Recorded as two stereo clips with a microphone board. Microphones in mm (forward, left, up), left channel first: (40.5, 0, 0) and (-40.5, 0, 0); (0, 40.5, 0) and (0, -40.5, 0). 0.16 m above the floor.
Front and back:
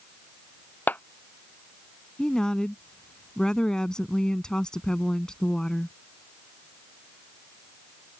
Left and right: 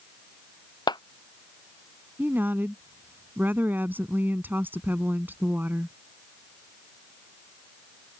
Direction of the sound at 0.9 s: 70° left.